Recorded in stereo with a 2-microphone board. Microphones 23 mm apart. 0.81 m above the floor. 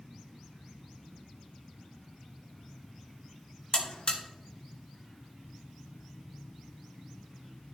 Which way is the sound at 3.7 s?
50° left (ahead or behind).